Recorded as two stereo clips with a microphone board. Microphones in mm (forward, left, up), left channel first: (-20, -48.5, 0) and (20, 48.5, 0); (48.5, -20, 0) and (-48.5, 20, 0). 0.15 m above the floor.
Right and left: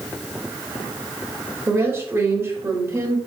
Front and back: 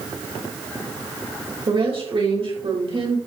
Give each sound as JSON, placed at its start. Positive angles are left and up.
{"t": 1.7, "sound": "a woman speaking", "azimuth_deg": 130, "distance_m": 4.5}